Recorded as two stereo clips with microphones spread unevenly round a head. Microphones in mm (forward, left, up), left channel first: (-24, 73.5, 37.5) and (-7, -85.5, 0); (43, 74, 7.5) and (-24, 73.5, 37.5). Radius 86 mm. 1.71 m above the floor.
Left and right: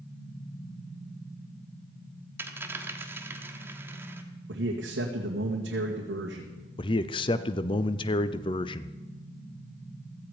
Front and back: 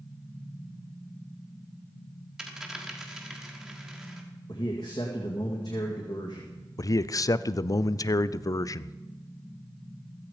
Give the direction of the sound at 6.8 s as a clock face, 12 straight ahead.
11 o'clock.